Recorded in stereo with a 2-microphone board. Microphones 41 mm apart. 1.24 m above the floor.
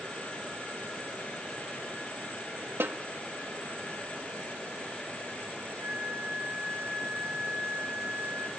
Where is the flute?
60° right (ahead or behind), 6.5 m.